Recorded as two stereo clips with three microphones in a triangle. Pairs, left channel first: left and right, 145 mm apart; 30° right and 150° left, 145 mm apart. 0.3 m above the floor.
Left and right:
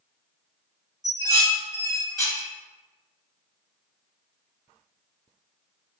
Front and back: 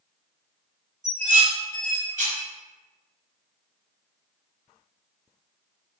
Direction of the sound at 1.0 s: 150° left.